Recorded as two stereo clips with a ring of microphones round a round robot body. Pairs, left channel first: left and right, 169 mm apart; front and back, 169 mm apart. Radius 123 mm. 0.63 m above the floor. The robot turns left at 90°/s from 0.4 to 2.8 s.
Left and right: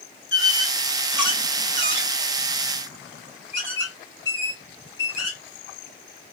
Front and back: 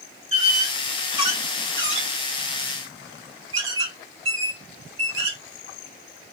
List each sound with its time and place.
0.3 s a squeak: 50° left, 1.5 m; by 5.4 s 170° right, 1.5 m